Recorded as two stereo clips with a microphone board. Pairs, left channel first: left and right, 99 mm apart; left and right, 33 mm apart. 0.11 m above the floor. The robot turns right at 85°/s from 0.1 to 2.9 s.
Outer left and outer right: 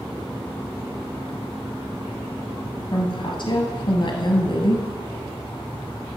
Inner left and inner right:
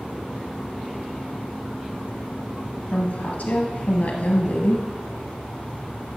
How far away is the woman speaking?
About 2 m.